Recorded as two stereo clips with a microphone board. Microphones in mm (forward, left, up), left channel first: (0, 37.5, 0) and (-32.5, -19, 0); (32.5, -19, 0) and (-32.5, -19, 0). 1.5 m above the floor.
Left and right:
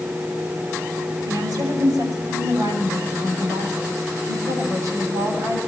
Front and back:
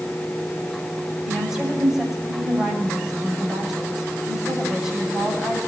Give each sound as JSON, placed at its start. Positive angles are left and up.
{"t": 1.2, "sound": "a woman speaking", "azimuth_deg": -100, "distance_m": 8.0}